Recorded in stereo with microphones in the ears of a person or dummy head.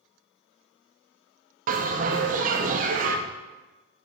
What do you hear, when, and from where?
1.7 s a bell: 45° right (ahead or behind), 0.6 m